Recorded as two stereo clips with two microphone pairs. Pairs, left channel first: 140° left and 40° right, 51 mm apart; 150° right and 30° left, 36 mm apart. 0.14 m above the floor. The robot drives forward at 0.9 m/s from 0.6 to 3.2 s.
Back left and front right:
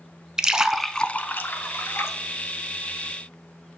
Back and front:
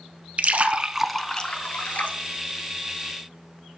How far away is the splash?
About 0.6 m.